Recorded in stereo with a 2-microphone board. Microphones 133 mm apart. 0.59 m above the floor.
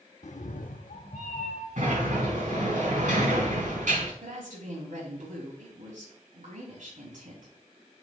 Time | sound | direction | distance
0.2 | a cat meowing | 65° left (ahead or behind) | 0.6 m
1.8 | a sliding door | 75° right (ahead or behind) | 4.5 m
4.2 | a woman speaking | 75° right (ahead or behind) | 5 m